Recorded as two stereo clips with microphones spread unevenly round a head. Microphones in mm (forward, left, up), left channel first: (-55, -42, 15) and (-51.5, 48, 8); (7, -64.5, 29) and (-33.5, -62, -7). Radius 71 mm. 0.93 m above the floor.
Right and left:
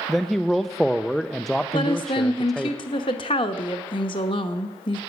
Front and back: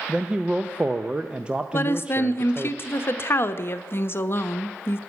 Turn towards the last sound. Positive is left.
turn(degrees=-50)